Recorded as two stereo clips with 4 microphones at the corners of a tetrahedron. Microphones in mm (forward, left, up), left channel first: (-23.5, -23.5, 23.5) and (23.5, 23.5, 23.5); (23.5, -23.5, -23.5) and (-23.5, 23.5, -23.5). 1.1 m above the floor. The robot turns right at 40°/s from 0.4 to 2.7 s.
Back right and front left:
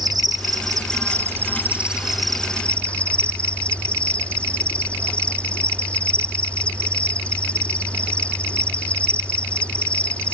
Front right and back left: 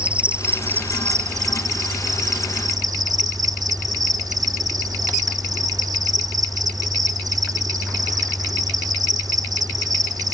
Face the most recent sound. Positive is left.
turn(degrees=155)